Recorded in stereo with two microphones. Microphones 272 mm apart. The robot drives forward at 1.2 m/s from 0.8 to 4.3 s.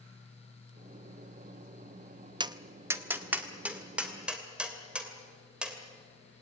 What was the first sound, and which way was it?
Tapping, 15° right (ahead or behind).